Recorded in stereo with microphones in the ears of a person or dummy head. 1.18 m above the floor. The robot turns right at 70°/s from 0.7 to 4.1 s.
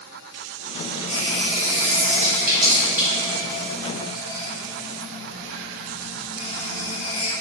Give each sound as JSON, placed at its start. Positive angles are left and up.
{"t": 1.1, "sound": "a running tap", "side_deg": -35, "distance_m": 1.5}